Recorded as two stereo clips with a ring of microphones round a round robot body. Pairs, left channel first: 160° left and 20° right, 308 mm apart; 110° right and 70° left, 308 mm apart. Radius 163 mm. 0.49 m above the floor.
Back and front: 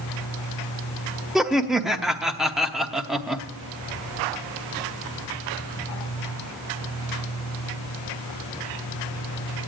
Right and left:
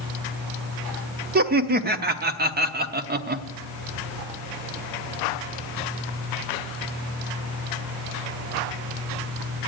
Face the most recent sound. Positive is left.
turn(degrees=65)